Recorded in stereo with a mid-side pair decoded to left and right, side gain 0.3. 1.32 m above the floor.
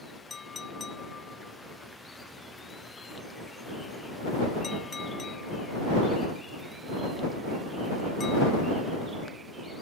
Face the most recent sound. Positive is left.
turn(degrees=50)